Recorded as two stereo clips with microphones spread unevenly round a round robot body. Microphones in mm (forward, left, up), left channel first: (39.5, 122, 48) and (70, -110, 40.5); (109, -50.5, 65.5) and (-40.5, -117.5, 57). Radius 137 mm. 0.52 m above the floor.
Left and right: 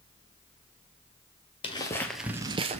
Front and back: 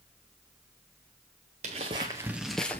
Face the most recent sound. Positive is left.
turn(degrees=-40)